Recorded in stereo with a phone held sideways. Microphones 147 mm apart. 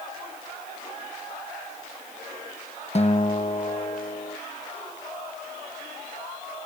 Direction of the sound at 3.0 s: 45° left (ahead or behind).